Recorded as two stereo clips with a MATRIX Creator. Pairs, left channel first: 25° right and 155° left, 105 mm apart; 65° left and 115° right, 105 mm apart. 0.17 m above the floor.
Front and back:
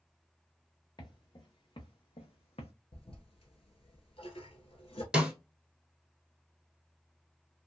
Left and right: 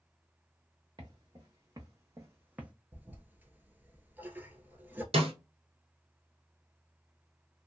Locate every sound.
1.0 s footsteps: 70° right, 1.4 m; by 2.7 s 35° right, 0.7 m
2.9 s a toilet flushing: 40° right, 0.6 m
5.1 s a snare drum: 120° right, 1.0 m